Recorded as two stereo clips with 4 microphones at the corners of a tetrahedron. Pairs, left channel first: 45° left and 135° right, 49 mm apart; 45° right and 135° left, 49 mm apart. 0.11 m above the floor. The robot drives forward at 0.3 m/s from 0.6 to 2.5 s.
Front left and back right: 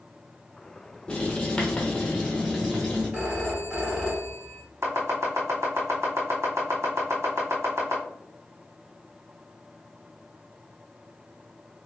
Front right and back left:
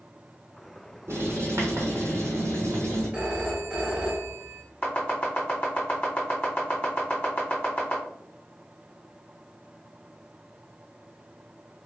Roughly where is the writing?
Behind left.